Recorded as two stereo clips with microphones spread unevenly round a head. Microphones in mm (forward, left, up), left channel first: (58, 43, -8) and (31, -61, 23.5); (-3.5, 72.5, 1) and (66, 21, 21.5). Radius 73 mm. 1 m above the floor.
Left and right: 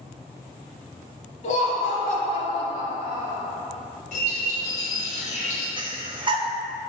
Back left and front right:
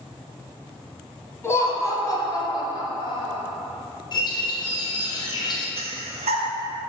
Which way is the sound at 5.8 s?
55° right.